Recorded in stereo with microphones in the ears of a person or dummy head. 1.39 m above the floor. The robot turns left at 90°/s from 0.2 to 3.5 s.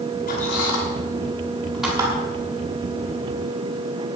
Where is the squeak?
40° left (ahead or behind), 6 m; by 2.1 s 30° right (ahead or behind), 6 m.